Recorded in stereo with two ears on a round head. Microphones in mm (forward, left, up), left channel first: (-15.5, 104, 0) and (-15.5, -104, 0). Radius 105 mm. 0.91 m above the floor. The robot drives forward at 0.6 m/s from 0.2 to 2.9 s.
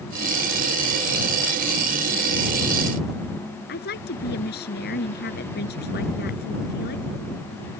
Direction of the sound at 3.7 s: 45° left (ahead or behind).